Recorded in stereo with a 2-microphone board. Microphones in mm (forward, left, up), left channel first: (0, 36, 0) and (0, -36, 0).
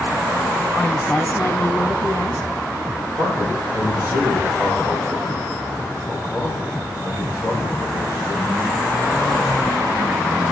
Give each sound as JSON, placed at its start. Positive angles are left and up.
{"t": 0.8, "sound": "a woman speaking", "side_deg": 5, "distance_m": 1.3}
{"t": 3.2, "sound": "a man speaking", "side_deg": 50, "distance_m": 9.0}